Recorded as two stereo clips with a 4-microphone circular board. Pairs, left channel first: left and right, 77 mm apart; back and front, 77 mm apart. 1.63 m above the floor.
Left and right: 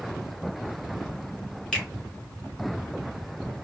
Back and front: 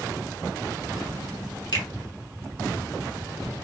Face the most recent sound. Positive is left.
turn(degrees=170)